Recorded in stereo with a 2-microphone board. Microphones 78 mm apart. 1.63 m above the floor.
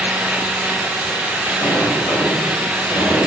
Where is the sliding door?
70° left (ahead or behind), 5.5 m.